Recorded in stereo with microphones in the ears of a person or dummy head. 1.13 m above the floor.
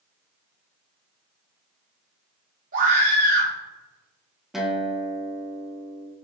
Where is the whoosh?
I don't hear a whoosh.